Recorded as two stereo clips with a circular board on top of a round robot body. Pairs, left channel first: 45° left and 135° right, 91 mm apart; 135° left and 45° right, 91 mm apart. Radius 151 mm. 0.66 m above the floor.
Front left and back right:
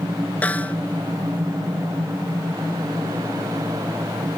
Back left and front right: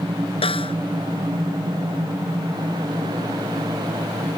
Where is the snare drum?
120° left.